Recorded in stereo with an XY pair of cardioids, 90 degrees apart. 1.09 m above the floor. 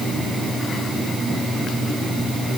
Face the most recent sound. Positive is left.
No sound to turn to.